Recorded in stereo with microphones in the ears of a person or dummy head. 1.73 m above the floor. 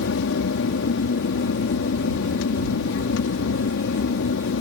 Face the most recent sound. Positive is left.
turn(degrees=70)  # may be behind; listen again after turning